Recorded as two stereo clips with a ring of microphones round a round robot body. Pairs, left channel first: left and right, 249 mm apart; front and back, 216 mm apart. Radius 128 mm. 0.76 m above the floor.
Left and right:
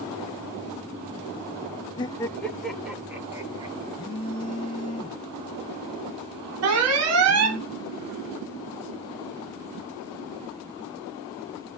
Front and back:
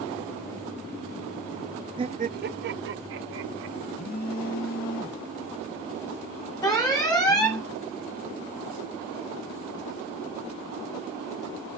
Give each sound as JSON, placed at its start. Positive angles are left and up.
{"t": 2.0, "sound": "laughter", "azimuth_deg": 140, "distance_m": 0.7}
{"t": 3.9, "sound": "a phone buzzing", "azimuth_deg": 25, "distance_m": 1.5}
{"t": 6.6, "sound": "an alarm", "azimuth_deg": -75, "distance_m": 3.0}